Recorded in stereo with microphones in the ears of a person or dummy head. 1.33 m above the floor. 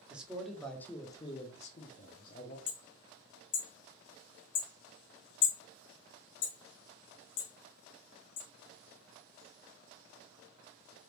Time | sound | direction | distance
0.1 | a man speaking | 5° right (ahead or behind) | 0.9 m
2.7 | hammering | 45° left (ahead or behind) | 0.7 m